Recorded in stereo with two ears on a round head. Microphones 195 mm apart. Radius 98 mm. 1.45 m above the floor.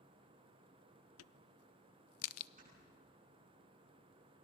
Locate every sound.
1.2 s a crack: 75° left (ahead or behind), 0.5 m
2.6 s snoring: 40° right (ahead or behind), 10 m